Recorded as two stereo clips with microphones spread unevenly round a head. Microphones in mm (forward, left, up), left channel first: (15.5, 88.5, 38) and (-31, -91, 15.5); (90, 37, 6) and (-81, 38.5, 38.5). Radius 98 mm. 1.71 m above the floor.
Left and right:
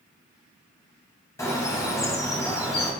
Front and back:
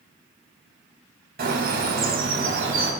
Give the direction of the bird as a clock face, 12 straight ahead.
7 o'clock.